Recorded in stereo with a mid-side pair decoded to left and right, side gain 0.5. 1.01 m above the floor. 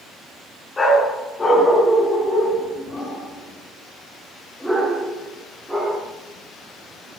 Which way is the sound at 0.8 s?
30° left.